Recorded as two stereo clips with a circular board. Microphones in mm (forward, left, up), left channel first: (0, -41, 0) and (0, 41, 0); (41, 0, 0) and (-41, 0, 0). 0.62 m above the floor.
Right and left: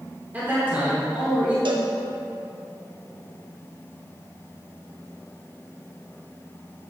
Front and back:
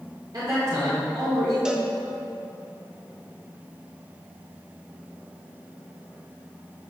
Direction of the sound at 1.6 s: 100° left.